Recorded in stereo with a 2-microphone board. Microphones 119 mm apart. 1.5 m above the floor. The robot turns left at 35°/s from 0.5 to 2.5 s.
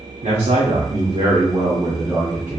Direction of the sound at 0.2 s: 105° right.